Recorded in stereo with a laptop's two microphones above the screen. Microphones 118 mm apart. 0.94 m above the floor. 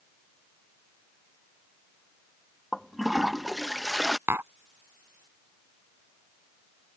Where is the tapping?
20° right (ahead or behind).